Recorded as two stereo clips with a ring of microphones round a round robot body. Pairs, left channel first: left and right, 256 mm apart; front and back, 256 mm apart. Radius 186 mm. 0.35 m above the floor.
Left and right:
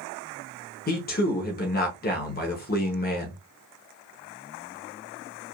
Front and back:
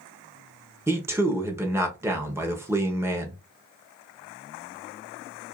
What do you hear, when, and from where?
0.9 s a man speaking: 105° left, 1.1 m